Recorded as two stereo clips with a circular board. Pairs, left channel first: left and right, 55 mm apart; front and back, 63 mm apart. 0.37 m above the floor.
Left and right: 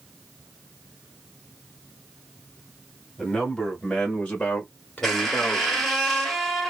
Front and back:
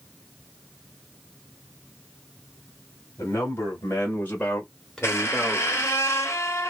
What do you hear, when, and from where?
3.2 s a man speaking: 15° left, 1.5 m; by 5.9 s 115° left, 1.2 m
5.0 s a squeak: 10° left, 1.0 m